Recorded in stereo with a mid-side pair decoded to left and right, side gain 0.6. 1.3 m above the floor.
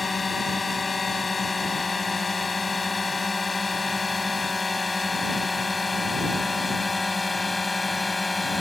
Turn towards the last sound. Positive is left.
turn(degrees=10)